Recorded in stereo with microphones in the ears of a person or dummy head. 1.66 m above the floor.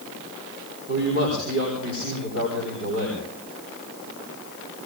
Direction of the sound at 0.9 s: 70° right (ahead or behind).